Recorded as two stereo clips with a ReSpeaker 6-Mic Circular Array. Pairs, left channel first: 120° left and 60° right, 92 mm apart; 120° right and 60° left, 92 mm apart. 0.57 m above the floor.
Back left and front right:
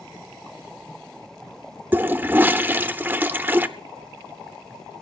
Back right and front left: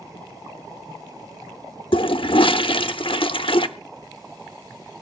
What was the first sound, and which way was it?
A toilet flushing, 125° right.